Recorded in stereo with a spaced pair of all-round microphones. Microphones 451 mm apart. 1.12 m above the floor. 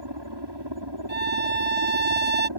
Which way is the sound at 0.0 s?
65° right (ahead or behind).